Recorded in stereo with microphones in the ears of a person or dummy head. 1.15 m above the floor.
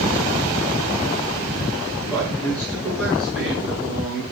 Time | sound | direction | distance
2.1 | a man speaking | 10° left (ahead or behind) | 7.5 m